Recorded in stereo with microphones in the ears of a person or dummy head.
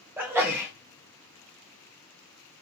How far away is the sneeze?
About 1.0 m.